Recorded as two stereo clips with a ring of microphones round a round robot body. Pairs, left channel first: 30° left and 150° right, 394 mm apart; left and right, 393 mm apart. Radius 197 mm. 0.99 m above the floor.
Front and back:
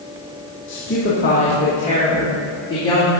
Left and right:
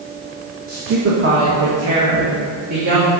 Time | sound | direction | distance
0.7 | a woman speaking | 25° right | 1.3 m